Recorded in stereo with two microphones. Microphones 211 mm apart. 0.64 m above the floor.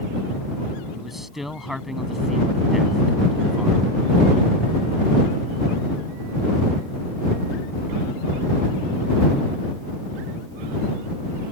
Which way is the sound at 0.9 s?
Centre (ahead or behind).